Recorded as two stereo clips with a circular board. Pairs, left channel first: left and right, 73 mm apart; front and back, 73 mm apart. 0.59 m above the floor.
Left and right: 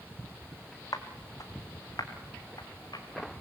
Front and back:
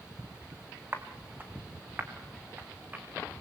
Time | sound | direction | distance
0.9 | footsteps | 120° left | 2.5 m